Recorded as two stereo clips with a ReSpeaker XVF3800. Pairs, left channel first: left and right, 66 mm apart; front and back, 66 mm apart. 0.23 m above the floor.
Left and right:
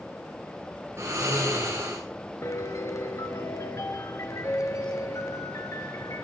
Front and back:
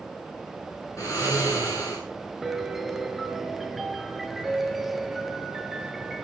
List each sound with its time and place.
1.0 s snoring: 40° right, 9 m
2.4 s a piano: 95° left, 1.6 m